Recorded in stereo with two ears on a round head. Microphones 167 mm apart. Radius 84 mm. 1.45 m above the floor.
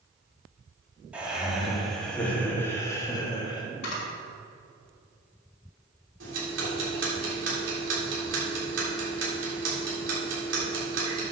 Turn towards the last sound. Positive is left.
turn(degrees=-70)  # may be behind; listen again after turning